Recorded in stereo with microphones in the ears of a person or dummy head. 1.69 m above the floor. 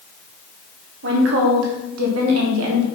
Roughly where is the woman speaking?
Right.